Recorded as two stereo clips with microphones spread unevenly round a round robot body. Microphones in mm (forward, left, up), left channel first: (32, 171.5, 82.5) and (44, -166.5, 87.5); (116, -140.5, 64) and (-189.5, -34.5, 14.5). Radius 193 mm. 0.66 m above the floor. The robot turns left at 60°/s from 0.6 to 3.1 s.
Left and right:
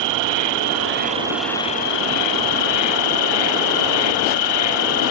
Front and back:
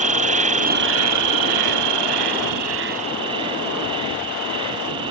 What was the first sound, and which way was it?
An insect, 130° right.